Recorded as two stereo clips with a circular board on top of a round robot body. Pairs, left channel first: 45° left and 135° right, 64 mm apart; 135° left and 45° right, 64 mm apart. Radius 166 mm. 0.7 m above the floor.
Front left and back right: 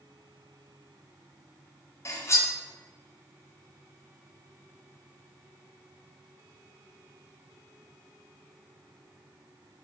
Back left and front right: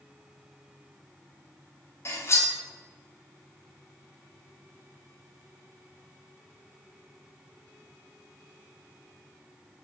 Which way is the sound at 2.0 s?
90° left.